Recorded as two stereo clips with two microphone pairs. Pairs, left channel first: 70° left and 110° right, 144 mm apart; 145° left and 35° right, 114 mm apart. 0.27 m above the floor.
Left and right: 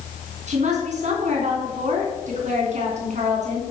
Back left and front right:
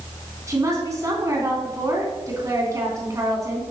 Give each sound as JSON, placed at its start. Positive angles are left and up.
{"t": 0.5, "sound": "a woman speaking", "azimuth_deg": -95, "distance_m": 3.0}